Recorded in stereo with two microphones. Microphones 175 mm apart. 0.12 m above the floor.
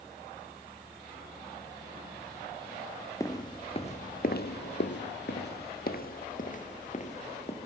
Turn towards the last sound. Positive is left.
turn(degrees=40)  # may be behind; listen again after turning